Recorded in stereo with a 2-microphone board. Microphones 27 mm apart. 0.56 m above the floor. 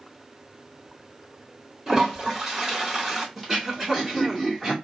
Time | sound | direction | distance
1.9 | a toilet flushing | 15° right (ahead or behind) | 3 m
3.4 | throat clearing | 10° right (ahead or behind) | 1.8 m